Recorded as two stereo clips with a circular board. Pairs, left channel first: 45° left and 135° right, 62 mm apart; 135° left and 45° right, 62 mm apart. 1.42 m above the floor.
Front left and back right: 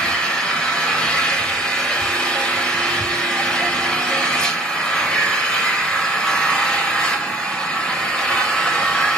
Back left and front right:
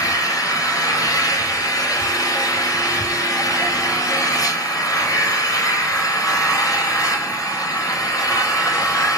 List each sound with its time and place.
0.0 s an engine running: 115° left, 4.5 m